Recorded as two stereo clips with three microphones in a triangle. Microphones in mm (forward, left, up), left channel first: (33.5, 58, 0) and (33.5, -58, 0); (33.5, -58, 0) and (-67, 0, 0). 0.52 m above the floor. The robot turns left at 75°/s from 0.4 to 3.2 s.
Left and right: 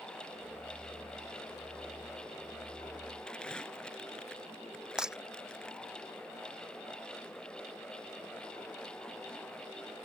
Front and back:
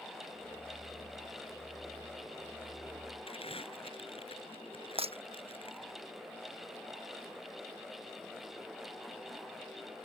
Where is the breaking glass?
175° right.